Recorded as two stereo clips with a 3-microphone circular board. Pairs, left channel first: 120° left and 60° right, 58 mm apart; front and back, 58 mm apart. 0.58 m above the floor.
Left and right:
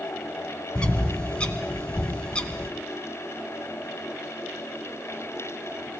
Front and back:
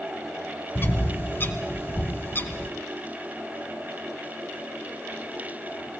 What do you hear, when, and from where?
0.8 s a bird: 50° left, 2 m